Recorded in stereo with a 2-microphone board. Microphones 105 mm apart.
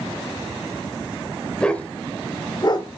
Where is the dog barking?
10° left (ahead or behind), 1.2 m; by 3.0 s 50° left (ahead or behind), 0.8 m.